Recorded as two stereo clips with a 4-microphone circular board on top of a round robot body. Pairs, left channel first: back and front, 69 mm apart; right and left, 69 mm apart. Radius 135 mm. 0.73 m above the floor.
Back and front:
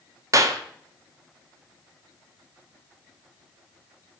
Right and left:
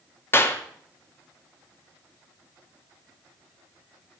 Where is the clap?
35° right, 1.8 m.